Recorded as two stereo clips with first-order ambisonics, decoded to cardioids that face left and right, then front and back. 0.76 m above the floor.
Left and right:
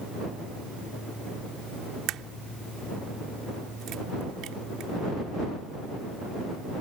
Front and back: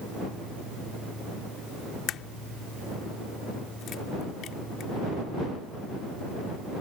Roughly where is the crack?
Ahead right.